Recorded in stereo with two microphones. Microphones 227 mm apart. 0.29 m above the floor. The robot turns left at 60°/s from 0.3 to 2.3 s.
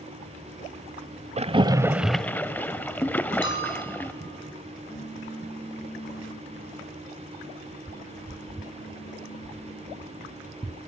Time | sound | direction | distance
1.4 | a splash | 30° right (ahead or behind) | 0.7 m
3.4 | a bell | 55° left (ahead or behind) | 3.5 m
4.9 | a pop | 40° left (ahead or behind) | 4.5 m